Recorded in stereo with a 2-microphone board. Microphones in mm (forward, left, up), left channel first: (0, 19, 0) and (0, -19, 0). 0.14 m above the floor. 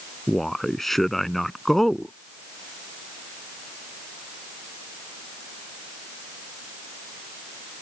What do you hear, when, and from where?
0.3 s a man speaking: 5° left (ahead or behind)